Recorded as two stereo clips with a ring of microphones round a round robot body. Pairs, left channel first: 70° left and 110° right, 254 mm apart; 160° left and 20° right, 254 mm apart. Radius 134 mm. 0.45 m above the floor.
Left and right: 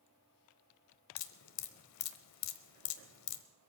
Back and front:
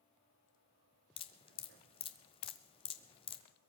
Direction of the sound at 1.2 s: 90° left.